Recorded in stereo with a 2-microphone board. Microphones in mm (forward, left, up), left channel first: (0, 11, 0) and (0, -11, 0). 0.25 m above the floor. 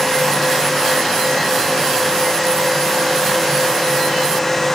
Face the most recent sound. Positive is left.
No sound to turn to.